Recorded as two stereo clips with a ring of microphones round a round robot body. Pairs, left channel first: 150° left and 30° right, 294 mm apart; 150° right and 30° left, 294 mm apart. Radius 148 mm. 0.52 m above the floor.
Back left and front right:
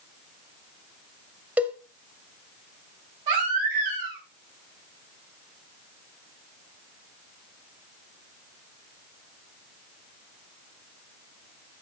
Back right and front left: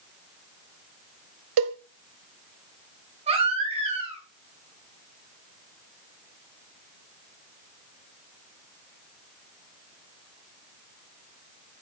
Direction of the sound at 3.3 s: 40° right.